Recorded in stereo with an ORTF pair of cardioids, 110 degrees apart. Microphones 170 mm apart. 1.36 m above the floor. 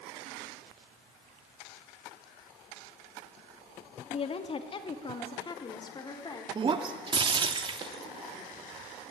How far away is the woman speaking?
About 3 m.